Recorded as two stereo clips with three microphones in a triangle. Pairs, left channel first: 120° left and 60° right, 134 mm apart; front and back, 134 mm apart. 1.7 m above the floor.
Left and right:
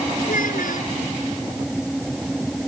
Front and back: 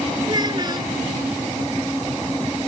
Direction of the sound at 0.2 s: 120° left.